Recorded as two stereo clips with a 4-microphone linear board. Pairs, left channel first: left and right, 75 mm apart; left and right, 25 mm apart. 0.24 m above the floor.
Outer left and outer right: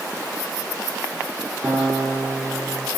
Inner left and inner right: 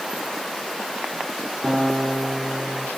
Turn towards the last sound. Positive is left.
turn(degrees=-25)  # may be behind; listen again after turning